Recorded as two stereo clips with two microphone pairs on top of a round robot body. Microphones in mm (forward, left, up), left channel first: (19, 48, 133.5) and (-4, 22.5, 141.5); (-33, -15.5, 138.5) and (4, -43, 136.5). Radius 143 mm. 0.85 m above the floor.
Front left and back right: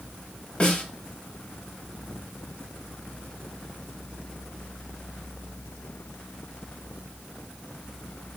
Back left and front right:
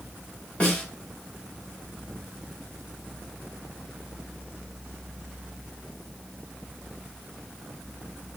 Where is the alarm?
No alarm in this recording.